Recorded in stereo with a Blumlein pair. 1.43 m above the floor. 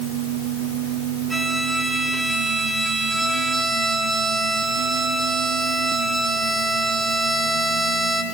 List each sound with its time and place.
1.3 s a violin: 5° right, 4 m